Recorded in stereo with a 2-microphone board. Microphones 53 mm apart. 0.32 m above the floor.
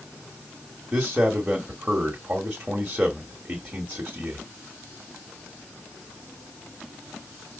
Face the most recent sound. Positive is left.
turn(degrees=-20)  # may be behind; listen again after turning